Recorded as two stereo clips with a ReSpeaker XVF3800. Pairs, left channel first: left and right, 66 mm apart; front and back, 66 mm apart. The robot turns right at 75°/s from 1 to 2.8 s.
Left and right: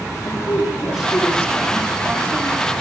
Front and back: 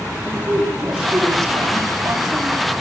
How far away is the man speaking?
About 6 m.